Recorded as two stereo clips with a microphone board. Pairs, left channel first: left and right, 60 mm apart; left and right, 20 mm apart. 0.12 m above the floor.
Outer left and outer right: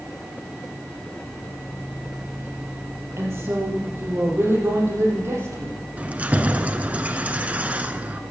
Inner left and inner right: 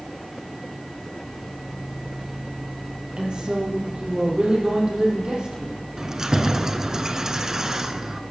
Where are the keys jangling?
25° right (ahead or behind), 0.8 m.